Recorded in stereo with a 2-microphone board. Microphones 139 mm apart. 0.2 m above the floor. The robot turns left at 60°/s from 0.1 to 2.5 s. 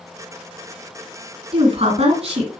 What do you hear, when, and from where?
1.5 s a woman speaking: 65° right, 2 m; by 2.5 s 125° right, 2 m